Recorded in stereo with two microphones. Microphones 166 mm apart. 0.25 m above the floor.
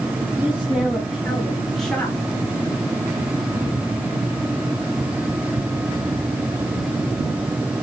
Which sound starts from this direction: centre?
A woman speaking, at 0.4 s.